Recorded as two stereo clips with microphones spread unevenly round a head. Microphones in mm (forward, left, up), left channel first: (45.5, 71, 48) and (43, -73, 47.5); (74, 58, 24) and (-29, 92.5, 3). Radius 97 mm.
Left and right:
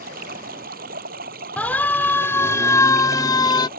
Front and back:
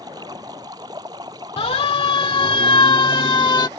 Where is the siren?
10° left; by 3.7 s 30° left.